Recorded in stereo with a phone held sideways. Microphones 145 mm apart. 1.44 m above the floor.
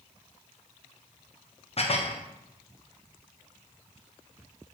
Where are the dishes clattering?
45° left (ahead or behind), 0.5 m.